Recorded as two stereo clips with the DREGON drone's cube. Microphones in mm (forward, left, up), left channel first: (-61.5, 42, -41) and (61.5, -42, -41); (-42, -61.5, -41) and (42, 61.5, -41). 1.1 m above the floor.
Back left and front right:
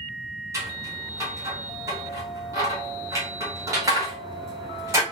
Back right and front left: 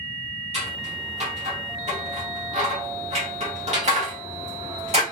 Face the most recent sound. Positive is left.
turn(degrees=30)